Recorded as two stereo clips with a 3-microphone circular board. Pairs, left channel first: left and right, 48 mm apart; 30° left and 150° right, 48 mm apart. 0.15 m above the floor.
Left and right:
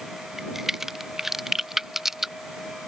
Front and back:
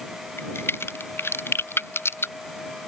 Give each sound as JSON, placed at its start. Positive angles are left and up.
{"t": 0.4, "sound": "a crack", "azimuth_deg": -5}